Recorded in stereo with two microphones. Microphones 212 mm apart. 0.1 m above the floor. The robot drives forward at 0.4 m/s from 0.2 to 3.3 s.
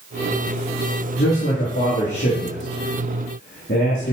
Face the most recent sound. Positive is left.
turn(degrees=60)  # may be behind; listen again after turning